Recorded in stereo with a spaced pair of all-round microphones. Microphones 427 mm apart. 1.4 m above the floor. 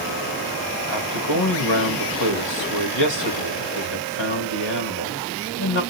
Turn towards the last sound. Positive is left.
turn(degrees=80)